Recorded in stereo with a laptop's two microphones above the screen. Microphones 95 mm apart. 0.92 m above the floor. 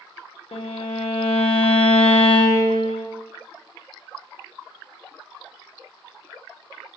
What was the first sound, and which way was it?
A violin, 85° left.